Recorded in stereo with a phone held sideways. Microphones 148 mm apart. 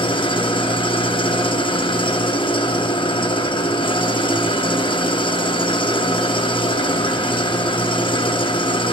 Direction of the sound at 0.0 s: 35° left (ahead or behind).